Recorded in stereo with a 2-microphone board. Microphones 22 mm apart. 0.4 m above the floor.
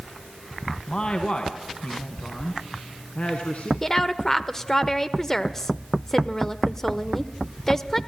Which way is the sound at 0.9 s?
40° left (ahead or behind).